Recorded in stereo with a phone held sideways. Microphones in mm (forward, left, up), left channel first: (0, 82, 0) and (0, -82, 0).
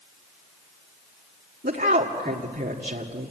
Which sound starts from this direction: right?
A woman speaking, at 1.6 s.